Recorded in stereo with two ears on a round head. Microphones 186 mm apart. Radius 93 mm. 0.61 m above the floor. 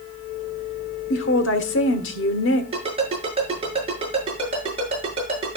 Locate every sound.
1.1 s a woman speaking: 60° left (ahead or behind), 1.5 m
2.7 s a ringtone: 30° right (ahead or behind), 7 m